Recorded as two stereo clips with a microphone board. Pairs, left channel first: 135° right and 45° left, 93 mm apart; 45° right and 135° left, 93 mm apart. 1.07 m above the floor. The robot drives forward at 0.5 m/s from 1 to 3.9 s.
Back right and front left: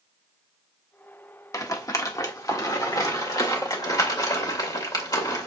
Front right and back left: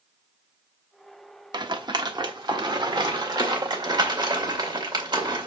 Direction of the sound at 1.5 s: 175° left.